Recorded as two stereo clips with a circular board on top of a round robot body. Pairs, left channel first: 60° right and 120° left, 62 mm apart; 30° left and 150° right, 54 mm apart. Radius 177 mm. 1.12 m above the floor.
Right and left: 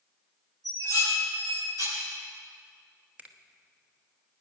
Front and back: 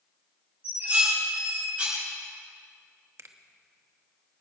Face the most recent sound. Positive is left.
turn(degrees=-175)